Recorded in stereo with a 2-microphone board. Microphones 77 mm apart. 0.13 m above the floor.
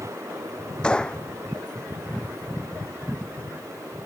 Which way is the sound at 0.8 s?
10° left (ahead or behind).